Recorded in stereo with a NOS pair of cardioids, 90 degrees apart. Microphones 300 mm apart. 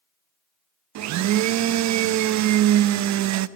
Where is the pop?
No pop in this recording.